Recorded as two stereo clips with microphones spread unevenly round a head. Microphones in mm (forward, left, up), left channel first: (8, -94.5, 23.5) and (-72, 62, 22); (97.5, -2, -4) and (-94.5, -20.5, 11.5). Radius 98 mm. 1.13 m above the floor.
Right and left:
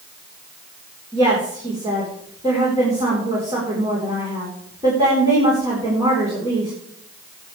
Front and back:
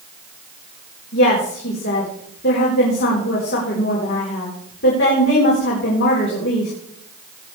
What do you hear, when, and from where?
1.1 s a woman speaking: 45° left, 4 m